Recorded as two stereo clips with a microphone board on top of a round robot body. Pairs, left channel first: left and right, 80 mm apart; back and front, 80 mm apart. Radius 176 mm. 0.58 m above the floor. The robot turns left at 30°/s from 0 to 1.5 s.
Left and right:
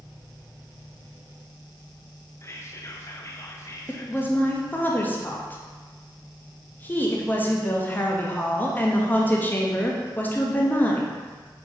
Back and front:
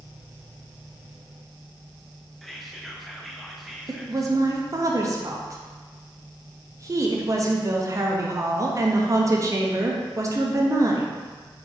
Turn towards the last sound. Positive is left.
turn(degrees=30)